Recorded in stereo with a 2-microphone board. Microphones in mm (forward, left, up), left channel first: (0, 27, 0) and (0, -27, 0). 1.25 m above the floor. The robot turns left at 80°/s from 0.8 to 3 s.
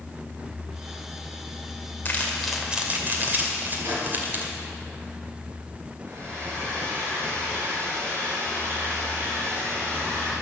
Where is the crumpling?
35° left (ahead or behind), 2.5 m; by 4.5 s 40° right (ahead or behind), 2.5 m.